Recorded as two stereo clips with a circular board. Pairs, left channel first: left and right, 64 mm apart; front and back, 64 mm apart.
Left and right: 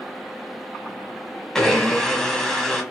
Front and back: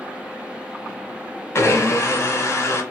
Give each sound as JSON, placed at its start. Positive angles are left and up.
{"t": 1.6, "sound": "a blender", "azimuth_deg": 10, "distance_m": 1.1}